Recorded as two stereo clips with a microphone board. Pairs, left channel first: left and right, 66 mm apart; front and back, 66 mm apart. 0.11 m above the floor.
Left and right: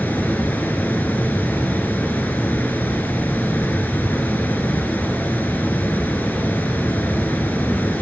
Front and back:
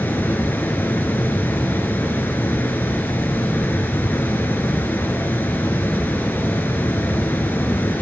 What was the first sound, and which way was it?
Running water, 40° left.